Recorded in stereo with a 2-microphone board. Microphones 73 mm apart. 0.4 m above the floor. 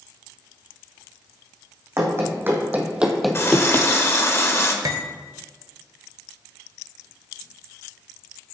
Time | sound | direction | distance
2.0 | running footsteps | 40° right (ahead or behind) | 1.7 m
3.3 | a running tap | 35° left (ahead or behind) | 0.8 m
4.8 | cutlery clinking | 55° right (ahead or behind) | 0.7 m